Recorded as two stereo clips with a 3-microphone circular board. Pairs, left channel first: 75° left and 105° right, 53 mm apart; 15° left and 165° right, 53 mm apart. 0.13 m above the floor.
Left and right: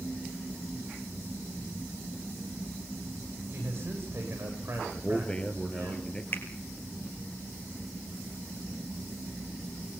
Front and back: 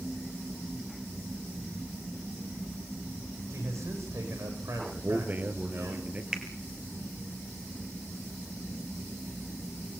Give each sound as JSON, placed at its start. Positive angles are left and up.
{"t": 3.5, "sound": "a man speaking", "azimuth_deg": -145, "distance_m": 9.0}
{"t": 4.9, "sound": "a man speaking", "azimuth_deg": 145, "distance_m": 2.5}
{"t": 6.3, "sound": "a finger snap", "azimuth_deg": 120, "distance_m": 3.0}